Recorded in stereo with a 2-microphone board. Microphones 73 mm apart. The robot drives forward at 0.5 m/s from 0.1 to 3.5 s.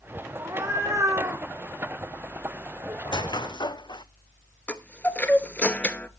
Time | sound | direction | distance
0.4 | a cat meowing | 45° right (ahead or behind) | 4 m
3.0 | a squeak | 80° left | 0.8 m
4.7 | a chime | 20° left (ahead or behind) | 0.9 m